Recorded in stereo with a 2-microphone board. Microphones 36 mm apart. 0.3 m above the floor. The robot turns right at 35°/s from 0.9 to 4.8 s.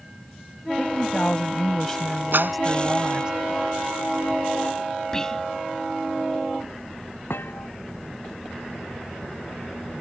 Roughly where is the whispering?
Centre.